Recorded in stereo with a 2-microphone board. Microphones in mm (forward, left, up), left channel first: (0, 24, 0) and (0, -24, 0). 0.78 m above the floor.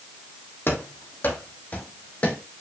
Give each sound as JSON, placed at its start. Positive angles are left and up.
{"t": 0.7, "sound": "running footsteps", "side_deg": 50, "distance_m": 2.0}